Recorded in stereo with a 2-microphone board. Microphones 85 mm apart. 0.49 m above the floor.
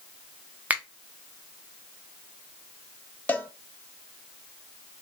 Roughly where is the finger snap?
Centre.